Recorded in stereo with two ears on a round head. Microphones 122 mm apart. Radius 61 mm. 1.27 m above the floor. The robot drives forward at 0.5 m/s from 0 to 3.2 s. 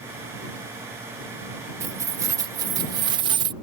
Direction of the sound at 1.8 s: 20° right (ahead or behind).